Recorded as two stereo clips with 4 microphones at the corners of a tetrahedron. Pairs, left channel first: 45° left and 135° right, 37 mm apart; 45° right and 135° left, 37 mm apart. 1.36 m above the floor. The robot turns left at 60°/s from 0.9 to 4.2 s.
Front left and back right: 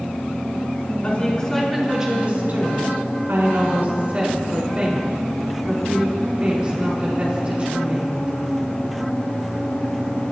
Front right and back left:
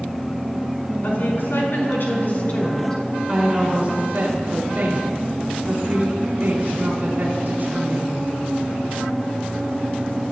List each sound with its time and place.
1.0 s a woman speaking: 5° right, 5.5 m; by 8.4 s 165° left, 5.5 m